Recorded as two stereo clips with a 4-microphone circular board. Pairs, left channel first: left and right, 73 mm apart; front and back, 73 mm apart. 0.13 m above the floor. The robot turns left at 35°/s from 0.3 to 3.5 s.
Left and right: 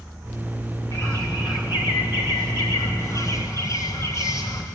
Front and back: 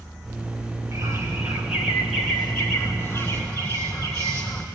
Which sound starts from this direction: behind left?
A bird, at 0.9 s.